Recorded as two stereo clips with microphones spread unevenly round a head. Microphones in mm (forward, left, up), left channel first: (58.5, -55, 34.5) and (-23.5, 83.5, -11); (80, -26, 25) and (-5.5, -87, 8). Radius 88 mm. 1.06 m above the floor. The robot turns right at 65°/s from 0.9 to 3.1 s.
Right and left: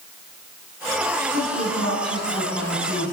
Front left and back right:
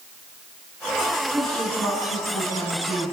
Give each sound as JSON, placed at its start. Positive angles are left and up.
{"t": 1.3, "sound": "a woman speaking", "azimuth_deg": -60, "distance_m": 8.5}